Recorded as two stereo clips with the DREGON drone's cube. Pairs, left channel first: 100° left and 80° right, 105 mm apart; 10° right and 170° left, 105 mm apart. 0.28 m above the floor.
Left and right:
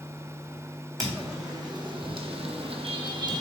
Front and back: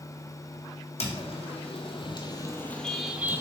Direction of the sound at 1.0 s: 20° right.